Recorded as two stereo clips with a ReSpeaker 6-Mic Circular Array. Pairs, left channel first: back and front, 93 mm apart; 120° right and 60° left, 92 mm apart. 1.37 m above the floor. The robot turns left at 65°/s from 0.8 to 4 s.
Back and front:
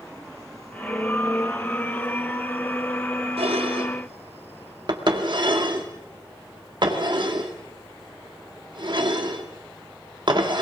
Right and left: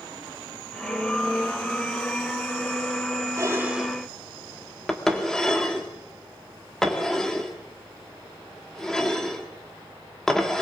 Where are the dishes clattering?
5° left, 2 m; by 10.6 s 35° right, 2 m.